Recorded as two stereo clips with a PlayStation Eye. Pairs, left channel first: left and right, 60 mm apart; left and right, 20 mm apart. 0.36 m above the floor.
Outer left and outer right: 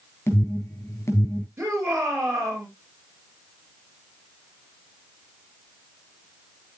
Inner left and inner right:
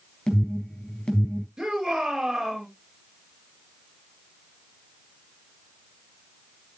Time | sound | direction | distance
0.3 | an alarm | 50° left (ahead or behind) | 4 m
1.6 | a shout | 45° right (ahead or behind) | 7.5 m